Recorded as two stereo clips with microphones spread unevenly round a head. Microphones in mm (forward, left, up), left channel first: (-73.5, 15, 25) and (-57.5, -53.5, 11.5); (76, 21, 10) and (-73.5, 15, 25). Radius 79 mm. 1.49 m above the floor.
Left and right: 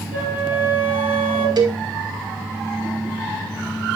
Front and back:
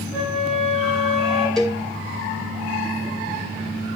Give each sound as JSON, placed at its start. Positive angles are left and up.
{"t": 0.1, "sound": "a flute", "azimuth_deg": -140, "distance_m": 6.0}
{"t": 1.6, "sound": "a cowbell", "azimuth_deg": -85, "distance_m": 2.5}